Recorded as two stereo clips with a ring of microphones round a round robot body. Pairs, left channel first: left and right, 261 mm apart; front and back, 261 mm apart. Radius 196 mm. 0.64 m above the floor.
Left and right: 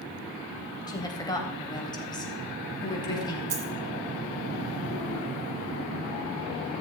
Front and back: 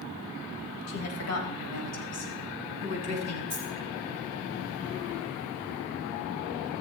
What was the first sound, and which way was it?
A woman speaking, 15° left.